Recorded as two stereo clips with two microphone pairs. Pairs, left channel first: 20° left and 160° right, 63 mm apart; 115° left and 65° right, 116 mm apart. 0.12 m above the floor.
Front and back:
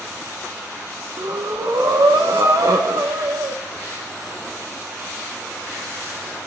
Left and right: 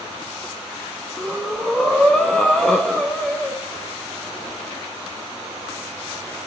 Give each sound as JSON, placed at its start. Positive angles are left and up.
{"t": 1.2, "sound": "breathing", "azimuth_deg": -160, "distance_m": 2.5}